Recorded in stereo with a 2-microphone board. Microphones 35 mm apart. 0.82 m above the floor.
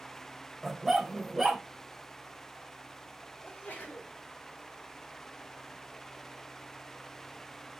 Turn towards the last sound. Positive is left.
turn(degrees=65)  # may be behind; listen again after turning